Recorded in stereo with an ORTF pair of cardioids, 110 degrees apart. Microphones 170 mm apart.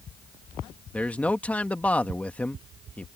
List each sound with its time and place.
0.9 s a man speaking: 10° left